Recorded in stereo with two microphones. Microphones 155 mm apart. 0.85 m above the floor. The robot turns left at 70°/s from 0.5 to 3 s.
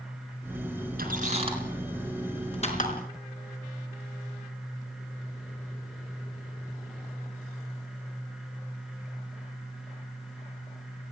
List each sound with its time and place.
1.0 s a squeak: 70° right (ahead or behind), 4 m; by 2.9 s 65° left (ahead or behind), 4 m